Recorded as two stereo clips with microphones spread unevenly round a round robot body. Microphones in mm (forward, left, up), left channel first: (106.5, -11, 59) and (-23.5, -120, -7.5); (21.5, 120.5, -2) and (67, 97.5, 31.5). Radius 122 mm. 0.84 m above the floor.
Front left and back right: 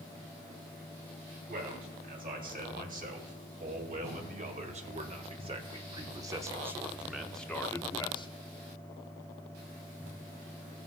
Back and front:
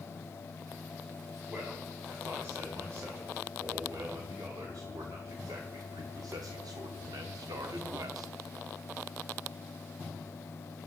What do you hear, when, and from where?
1.5 s a man speaking: 110° right, 6 m; by 8.3 s 25° right, 2 m